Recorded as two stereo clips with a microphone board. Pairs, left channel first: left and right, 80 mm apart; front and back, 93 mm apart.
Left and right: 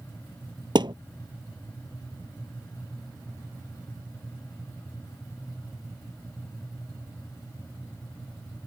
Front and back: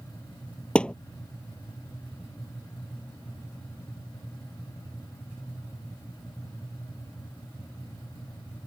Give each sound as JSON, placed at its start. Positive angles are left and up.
{"t": 0.8, "sound": "a thud", "azimuth_deg": -80}